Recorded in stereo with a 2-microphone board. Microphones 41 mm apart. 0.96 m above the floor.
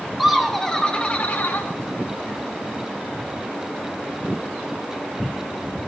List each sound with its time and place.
0.2 s laughter: centre (ahead or behind), 2.5 m; by 1.7 s 65° left (ahead or behind), 1.6 m